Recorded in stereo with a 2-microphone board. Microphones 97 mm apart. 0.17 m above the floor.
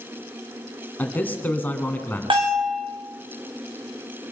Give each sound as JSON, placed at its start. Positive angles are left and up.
{"t": 1.0, "sound": "a man speaking", "side_deg": 20, "distance_m": 1.9}
{"t": 2.3, "sound": "a bell", "side_deg": -60, "distance_m": 4.0}